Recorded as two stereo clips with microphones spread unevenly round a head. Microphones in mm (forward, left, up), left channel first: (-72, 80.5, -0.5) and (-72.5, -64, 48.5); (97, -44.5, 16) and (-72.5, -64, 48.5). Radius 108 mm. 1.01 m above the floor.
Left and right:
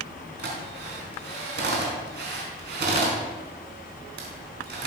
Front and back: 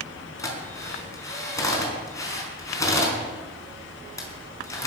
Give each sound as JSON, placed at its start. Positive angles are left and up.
{"t": 0.4, "sound": "a drill", "azimuth_deg": -70, "distance_m": 4.5}